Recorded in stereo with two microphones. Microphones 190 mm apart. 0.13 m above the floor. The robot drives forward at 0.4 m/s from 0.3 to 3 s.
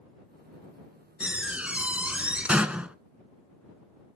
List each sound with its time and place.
1.2 s a door slam: 5° right (ahead or behind), 0.8 m